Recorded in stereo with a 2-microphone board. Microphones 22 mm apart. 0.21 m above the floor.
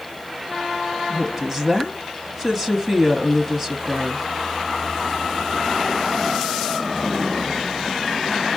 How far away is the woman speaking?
About 1.1 m.